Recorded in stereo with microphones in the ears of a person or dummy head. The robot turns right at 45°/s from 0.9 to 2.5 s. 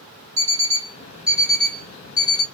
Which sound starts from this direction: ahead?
An alarm clock, at 0.4 s.